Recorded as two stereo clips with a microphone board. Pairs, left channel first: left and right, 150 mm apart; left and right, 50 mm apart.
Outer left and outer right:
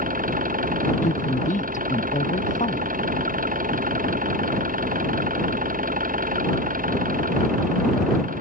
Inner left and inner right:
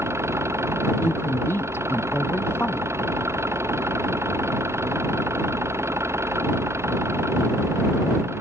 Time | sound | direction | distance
0.0 | an engine running | 65° right (ahead or behind) | ?
1.0 | a woman speaking | 60° left (ahead or behind) | ?